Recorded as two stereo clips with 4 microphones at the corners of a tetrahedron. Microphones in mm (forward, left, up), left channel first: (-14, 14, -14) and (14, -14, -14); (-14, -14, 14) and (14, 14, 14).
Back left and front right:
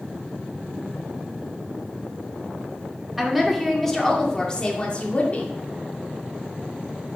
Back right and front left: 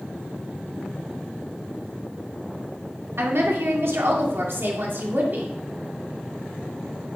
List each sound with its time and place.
3.2 s a woman speaking: 40° left, 2 m; by 5.5 s 85° left, 2 m